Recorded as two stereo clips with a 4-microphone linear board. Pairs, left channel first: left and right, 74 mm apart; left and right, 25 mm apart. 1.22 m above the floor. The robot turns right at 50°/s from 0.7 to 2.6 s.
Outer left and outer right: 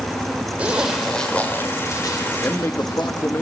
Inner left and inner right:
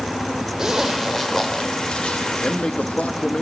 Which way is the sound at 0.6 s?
15° right (ahead or behind).